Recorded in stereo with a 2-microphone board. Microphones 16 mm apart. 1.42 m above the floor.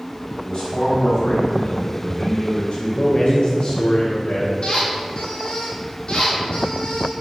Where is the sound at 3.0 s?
65° left (ahead or behind), 1.3 m.